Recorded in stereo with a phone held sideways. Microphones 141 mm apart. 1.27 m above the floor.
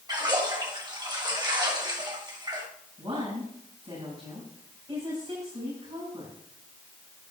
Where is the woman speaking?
30° right (ahead or behind), 7 m.